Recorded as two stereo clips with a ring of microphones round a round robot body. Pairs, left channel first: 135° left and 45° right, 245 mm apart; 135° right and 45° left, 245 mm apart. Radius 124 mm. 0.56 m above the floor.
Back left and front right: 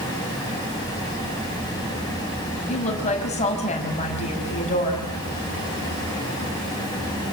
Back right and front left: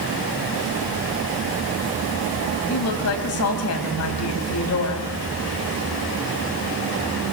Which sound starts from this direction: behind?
A woman speaking, at 2.7 s.